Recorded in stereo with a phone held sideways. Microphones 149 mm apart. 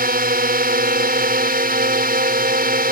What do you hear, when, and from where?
0.0 s a drone: 65° right (ahead or behind)